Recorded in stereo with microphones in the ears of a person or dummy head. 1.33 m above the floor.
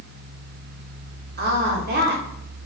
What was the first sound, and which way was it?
A woman speaking, 45° right (ahead or behind).